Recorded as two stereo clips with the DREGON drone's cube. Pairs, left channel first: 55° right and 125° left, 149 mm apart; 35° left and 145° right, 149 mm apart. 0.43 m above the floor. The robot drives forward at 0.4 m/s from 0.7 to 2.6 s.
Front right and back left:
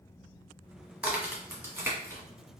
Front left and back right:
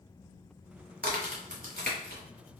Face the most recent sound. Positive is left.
turn(degrees=-165)